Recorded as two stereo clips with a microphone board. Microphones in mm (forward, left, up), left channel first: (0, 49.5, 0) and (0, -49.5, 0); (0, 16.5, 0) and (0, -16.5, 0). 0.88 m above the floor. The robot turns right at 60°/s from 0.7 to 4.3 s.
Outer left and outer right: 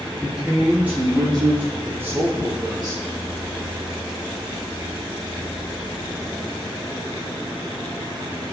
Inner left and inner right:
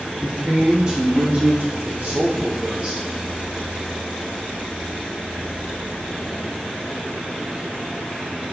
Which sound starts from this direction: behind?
A man speaking, at 0.2 s.